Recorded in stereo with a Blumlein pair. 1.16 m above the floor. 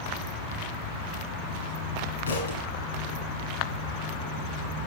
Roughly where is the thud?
Left.